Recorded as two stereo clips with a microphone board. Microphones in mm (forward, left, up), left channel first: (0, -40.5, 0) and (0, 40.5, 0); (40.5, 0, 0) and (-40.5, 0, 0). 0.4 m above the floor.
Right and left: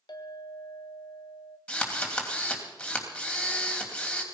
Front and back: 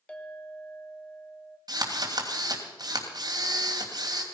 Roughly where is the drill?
Behind.